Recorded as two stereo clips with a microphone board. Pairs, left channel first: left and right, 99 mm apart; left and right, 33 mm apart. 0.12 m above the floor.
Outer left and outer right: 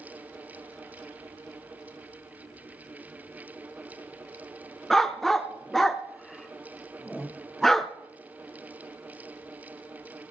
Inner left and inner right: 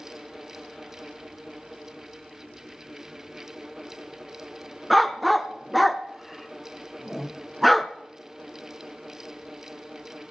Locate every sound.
4.9 s a dog barking: 5° left (ahead or behind), 0.6 m